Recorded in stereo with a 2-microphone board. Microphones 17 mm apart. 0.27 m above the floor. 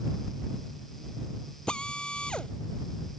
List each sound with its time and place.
1.7 s a drill: 80° left